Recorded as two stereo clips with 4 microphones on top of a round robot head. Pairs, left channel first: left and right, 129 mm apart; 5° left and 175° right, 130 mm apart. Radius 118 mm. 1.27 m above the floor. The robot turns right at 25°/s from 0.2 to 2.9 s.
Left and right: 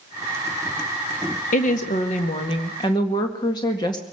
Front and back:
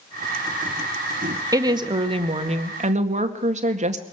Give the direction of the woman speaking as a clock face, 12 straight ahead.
8 o'clock.